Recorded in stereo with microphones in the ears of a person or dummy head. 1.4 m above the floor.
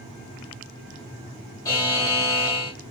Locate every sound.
1.6 s a buzzer: 20° left (ahead or behind), 1.4 m